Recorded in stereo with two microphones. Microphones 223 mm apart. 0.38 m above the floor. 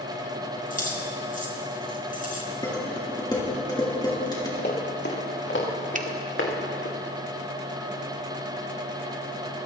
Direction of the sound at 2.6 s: 15° left (ahead or behind).